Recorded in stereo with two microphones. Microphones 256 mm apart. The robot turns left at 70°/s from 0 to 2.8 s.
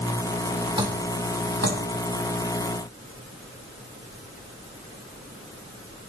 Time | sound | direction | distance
0.8 | dripping | 20° right (ahead or behind) | 2.5 m